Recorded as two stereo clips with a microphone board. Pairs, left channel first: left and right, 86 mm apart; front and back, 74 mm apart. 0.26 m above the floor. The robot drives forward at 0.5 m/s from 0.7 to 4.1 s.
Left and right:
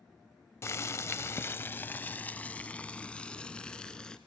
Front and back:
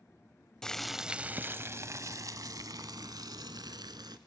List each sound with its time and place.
0.6 s boiling: 75° left, 0.6 m; by 4.2 s 170° left, 1.7 m